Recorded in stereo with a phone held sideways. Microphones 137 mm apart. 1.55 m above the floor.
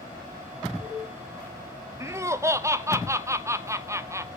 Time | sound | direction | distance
2.0 | laughter | 20° right (ahead or behind) | 0.6 m